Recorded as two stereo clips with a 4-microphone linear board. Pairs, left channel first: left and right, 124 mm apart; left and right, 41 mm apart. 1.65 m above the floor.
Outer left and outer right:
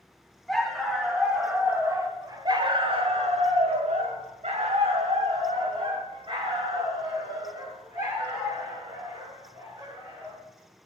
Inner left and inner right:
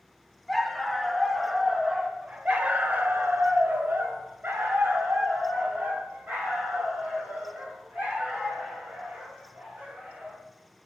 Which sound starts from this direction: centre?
A dog barking, at 0.5 s.